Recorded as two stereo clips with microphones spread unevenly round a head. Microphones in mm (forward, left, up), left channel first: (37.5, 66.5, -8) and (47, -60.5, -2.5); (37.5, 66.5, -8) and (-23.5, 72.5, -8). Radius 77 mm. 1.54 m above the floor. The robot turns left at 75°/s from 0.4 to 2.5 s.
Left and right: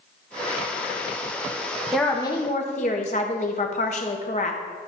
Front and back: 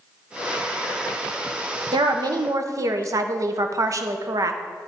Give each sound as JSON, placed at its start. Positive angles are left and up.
{"t": 1.9, "sound": "a woman speaking", "azimuth_deg": -175, "distance_m": 0.9}